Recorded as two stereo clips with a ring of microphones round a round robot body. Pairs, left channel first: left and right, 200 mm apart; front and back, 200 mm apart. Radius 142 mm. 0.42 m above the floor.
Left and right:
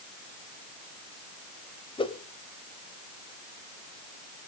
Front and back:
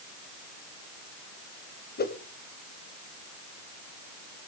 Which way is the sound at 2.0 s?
30° left.